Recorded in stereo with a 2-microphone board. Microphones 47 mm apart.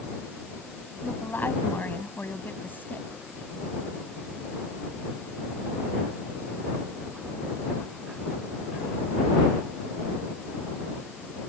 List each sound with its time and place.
1.0 s a woman speaking: 45° left (ahead or behind)